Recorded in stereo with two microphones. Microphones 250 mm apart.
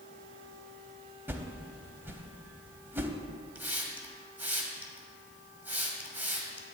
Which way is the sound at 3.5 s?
5° right (ahead or behind).